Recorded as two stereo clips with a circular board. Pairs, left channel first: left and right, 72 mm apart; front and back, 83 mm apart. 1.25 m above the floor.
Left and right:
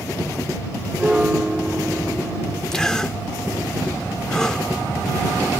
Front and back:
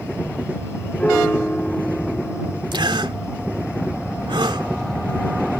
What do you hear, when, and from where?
1.0 s a piano: 40° right
2.7 s a gasp: 170° left